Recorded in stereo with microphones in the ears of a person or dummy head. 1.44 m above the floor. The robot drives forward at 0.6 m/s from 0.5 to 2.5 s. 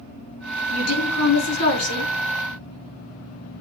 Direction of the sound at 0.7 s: 85° left.